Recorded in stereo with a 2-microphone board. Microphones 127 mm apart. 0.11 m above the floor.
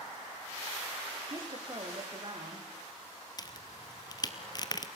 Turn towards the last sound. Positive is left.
turn(degrees=30)  # may be behind; listen again after turning